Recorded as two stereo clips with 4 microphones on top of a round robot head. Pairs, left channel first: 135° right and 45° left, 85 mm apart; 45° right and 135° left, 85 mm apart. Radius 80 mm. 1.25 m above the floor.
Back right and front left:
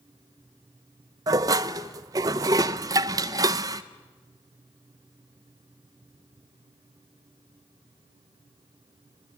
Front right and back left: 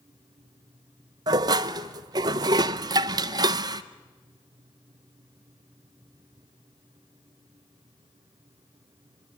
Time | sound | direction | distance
1.3 | dishes clattering | 95° left | 0.7 m